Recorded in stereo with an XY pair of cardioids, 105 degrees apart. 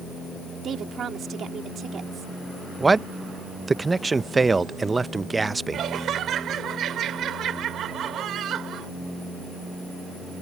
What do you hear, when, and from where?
0.6 s a woman speaking: 55° right
2.8 s a man speaking: 20° right
5.7 s laughter: 65° right